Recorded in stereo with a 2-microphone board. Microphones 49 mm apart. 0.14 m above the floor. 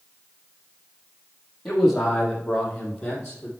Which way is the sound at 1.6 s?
Centre (ahead or behind).